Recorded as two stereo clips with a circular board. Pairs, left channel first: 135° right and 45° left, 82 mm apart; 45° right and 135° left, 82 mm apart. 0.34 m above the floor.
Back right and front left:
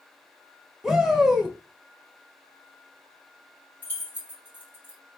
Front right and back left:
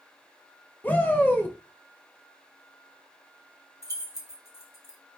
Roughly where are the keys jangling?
Right.